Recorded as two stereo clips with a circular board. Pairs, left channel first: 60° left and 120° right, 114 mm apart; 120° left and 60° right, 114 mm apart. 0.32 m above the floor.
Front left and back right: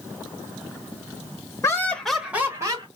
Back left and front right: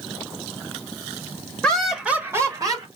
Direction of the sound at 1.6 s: 45° left.